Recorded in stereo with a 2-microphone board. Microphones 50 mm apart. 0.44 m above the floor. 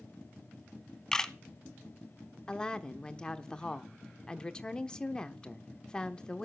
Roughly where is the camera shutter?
Centre.